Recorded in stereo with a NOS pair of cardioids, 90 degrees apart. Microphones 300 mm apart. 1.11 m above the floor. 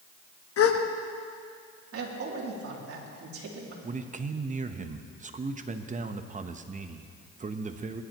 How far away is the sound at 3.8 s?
About 1.0 m.